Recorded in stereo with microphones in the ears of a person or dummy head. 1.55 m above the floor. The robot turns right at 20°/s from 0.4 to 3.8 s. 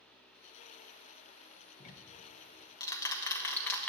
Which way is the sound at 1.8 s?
40° left (ahead or behind).